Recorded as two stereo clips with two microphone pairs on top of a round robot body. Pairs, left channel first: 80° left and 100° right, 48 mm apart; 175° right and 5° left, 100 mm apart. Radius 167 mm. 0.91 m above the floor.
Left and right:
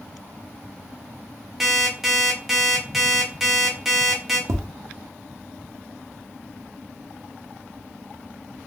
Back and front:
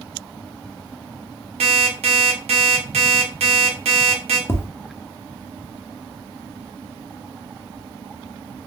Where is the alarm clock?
15° right, 0.6 m.